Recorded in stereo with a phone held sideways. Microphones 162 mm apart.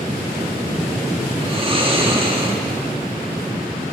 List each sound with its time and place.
1.4 s snoring: 35° right (ahead or behind), 1.7 m